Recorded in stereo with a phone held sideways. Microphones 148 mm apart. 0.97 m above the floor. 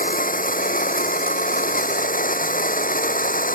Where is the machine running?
70° left (ahead or behind).